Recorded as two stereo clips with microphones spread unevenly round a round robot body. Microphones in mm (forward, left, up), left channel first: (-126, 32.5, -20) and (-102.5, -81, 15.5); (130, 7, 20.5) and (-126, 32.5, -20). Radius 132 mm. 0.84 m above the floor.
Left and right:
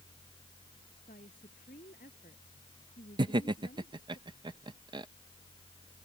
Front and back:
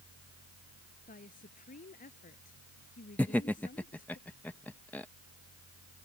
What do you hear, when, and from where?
1.1 s a woman speaking: 55° left
3.2 s laughter: 105° right